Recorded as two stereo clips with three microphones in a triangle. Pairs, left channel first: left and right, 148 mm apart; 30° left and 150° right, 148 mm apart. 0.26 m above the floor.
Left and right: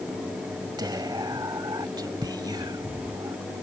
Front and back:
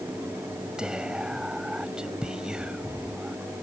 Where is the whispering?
70° right.